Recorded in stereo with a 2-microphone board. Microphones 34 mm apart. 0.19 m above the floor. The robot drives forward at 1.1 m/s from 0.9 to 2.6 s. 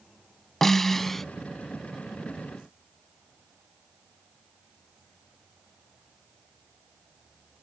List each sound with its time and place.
0.6 s a snare drum: 10° left (ahead or behind)